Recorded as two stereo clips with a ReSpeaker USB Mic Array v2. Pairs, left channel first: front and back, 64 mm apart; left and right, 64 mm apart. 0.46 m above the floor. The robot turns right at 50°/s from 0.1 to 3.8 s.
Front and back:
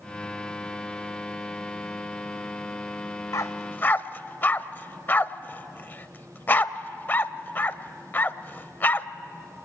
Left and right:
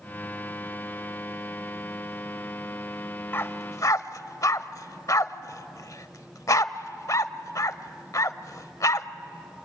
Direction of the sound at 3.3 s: 35° left.